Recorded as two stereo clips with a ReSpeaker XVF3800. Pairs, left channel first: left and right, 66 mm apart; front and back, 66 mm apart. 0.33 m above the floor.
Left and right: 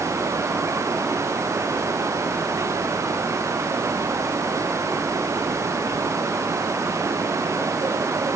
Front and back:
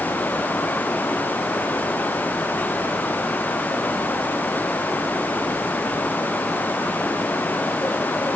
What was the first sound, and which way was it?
Only background noise.